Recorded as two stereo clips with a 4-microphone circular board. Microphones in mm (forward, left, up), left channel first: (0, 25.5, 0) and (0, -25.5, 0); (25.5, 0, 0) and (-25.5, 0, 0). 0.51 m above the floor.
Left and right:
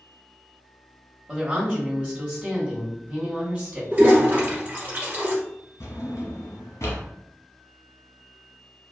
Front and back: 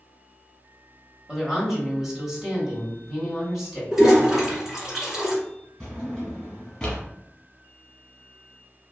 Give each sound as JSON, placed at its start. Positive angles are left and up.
{"t": 1.3, "sound": "a woman speaking", "azimuth_deg": -130, "distance_m": 1.1}
{"t": 3.9, "sound": "a toilet flushing", "azimuth_deg": -115, "distance_m": 1.2}
{"t": 5.8, "sound": "a drawer", "azimuth_deg": 80, "distance_m": 1.1}